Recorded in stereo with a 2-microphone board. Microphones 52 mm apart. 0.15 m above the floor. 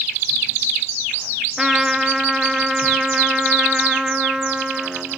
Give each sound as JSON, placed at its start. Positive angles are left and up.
{"t": 1.6, "sound": "a trumpet", "side_deg": -10, "distance_m": 1.2}